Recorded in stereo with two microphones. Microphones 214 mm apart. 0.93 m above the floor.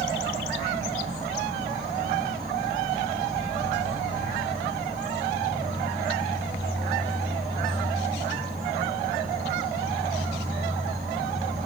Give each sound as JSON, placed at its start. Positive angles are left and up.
{"t": 0.0, "sound": "an insect", "side_deg": -45, "distance_m": 4.0}